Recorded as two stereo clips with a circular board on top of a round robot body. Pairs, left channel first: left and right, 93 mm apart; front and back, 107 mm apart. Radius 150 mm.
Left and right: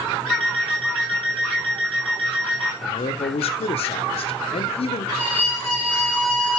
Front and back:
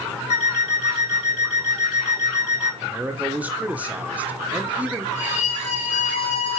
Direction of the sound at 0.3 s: 5° left.